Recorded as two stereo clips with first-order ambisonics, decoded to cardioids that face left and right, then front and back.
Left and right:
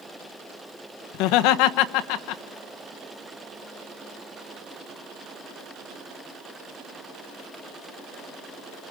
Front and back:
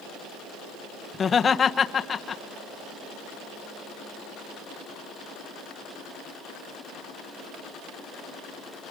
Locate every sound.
1.1 s laughter: 70° left, 1.1 m